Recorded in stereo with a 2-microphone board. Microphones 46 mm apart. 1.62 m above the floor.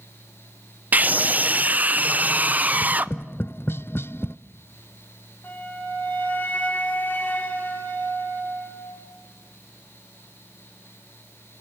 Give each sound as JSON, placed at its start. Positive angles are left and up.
{"t": 0.9, "sound": "a scream", "side_deg": -35, "distance_m": 0.6}
{"t": 2.7, "sound": "tapping", "side_deg": 55, "distance_m": 0.5}
{"t": 5.4, "sound": "a flute", "side_deg": 40, "distance_m": 8.0}